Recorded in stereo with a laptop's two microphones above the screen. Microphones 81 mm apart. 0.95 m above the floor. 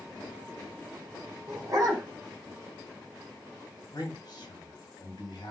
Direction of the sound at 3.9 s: 55° left (ahead or behind).